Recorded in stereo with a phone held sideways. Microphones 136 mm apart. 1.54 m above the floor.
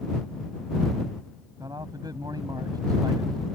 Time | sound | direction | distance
1.6 | a man speaking | 30° right (ahead or behind) | ?